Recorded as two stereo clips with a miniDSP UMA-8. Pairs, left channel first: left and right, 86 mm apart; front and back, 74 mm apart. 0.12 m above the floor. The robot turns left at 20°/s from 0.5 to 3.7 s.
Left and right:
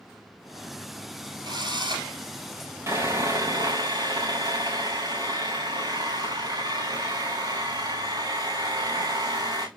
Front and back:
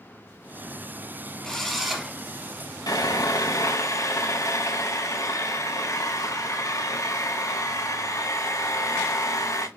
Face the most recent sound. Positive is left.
turn(degrees=-50)